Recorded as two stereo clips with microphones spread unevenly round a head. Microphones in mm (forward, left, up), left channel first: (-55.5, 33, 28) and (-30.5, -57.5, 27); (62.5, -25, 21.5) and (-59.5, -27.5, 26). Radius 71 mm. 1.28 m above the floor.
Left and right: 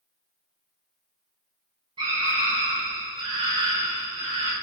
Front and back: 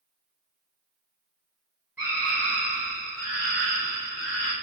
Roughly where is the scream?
Right.